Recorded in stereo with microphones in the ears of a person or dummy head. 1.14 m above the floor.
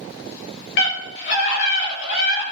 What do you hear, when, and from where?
0.8 s a scream: 65° left (ahead or behind), 6.5 m